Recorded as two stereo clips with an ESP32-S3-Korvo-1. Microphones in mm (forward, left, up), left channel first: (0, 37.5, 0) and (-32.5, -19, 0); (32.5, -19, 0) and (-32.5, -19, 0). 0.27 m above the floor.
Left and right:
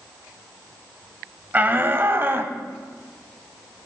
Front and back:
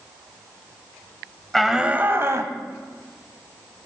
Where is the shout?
80° right, 1.0 m; by 2.5 s 165° right, 1.4 m.